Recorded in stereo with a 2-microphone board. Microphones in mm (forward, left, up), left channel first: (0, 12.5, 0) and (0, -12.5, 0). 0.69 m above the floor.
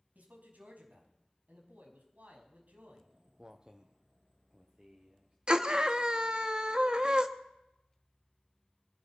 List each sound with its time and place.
0.1 s a man speaking: 80° right, 5.5 m
3.0 s footsteps: 25° right (ahead or behind), 0.8 m; by 5.4 s 30° right (ahead or behind), 3.5 m
5.5 s a scream: 35° right (ahead or behind), 1.3 m